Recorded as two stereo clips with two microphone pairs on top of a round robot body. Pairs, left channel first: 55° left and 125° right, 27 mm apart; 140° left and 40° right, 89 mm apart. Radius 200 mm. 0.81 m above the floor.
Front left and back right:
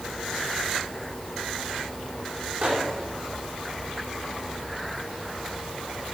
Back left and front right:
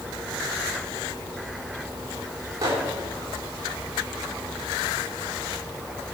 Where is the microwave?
90° right, 3 m.